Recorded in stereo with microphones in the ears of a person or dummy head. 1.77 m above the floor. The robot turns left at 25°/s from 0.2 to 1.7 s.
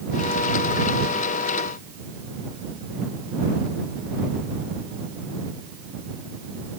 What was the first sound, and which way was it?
Only background noise.